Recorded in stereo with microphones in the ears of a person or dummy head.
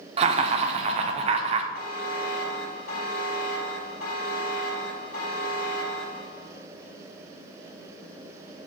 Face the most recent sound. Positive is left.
turn(degrees=50)  # may be behind; listen again after turning